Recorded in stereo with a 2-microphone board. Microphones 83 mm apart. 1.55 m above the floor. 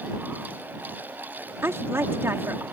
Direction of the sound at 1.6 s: 30° right (ahead or behind).